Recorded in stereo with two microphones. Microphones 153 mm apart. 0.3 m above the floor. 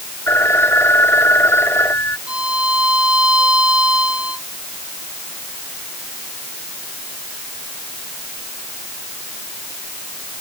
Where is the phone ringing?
15° left (ahead or behind).